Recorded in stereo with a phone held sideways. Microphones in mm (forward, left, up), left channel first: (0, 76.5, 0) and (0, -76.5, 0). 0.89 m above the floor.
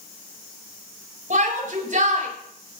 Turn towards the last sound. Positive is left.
turn(degrees=-60)  # may be behind; listen again after turning